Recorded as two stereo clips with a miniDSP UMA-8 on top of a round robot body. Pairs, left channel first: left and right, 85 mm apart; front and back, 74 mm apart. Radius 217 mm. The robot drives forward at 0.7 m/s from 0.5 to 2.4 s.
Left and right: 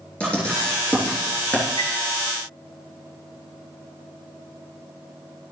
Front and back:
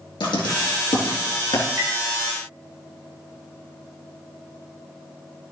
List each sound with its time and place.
0.2 s writing: 15° left, 3.5 m; by 1.7 s 20° left, 2.5 m
1.8 s tapping: 120° left, 3.5 m